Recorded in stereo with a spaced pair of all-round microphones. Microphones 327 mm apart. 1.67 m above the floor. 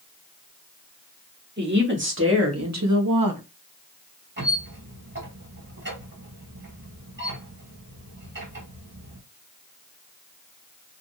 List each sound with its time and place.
1.6 s a woman speaking: 30° right (ahead or behind), 1.6 m; by 3.4 s 80° right, 0.6 m
4.4 s a squeak: 35° right (ahead or behind), 2 m